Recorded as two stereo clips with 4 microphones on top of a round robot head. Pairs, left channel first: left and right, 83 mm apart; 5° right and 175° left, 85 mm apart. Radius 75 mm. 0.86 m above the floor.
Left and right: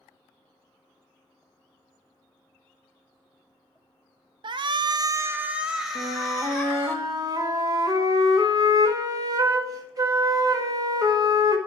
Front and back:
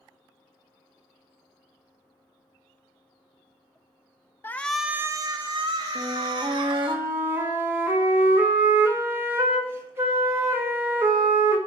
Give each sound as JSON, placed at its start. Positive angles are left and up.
{"t": 4.4, "sound": "a shout", "azimuth_deg": -70, "distance_m": 0.6}
{"t": 6.0, "sound": "a flute", "azimuth_deg": -125, "distance_m": 1.6}